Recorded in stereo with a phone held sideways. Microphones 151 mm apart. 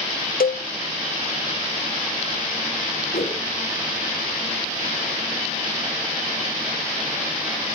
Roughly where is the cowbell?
Left.